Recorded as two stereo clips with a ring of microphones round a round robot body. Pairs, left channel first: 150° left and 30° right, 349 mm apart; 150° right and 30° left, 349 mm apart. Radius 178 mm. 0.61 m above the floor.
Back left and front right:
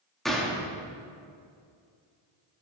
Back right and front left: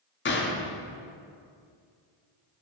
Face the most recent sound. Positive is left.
turn(degrees=-120)